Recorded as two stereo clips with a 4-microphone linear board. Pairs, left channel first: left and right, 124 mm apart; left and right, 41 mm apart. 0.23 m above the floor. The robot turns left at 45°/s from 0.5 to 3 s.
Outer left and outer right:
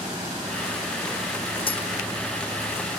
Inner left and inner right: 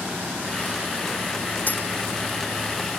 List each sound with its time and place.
1.7 s a dropped coin: 45° left (ahead or behind), 0.5 m; by 1.8 s 50° left (ahead or behind), 0.5 m